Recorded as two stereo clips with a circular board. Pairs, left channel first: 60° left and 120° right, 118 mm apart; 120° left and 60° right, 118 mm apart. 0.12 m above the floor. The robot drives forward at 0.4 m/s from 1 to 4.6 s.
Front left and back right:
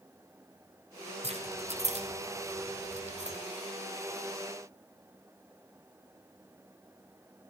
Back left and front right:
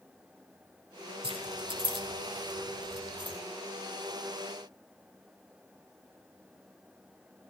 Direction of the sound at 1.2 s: 95° right.